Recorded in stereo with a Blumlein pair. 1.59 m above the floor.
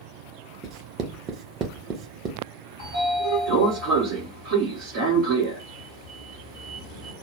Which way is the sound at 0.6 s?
30° right.